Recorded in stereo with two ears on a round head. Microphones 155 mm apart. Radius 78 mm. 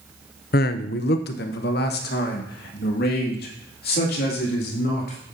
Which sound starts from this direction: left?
A man speaking, at 0.5 s.